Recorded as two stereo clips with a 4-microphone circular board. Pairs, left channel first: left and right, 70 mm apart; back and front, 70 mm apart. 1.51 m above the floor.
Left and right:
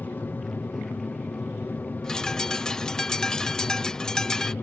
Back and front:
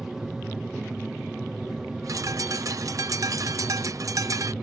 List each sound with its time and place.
0.0 s an aircraft: 75° left
2.0 s a bird: 10° left